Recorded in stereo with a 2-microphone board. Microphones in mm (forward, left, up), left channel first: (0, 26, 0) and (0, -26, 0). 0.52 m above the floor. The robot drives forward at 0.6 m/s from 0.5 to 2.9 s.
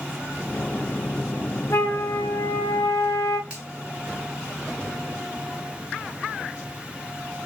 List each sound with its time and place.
1.7 s a flute: 60° left (ahead or behind), 0.9 m; by 3.4 s 70° left (ahead or behind), 0.9 m
3.5 s a finger snap: 25° right (ahead or behind), 3 m